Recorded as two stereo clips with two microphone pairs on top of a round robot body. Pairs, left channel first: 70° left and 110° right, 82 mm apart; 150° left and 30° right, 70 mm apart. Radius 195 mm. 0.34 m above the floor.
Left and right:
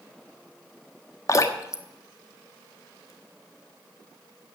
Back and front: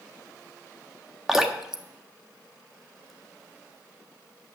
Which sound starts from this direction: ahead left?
Dripping, at 1.3 s.